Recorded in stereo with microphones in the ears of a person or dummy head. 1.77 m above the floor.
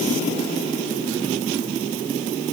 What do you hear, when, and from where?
Only background noise.